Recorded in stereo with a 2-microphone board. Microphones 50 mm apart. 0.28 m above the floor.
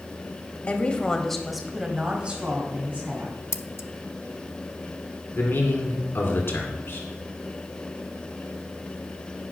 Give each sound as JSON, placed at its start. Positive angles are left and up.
{"t": 0.7, "sound": "a woman speaking", "side_deg": 30, "distance_m": 1.1}
{"t": 3.5, "sound": "scissors", "side_deg": 70, "distance_m": 0.6}
{"t": 5.3, "sound": "a man speaking", "side_deg": 50, "distance_m": 2.5}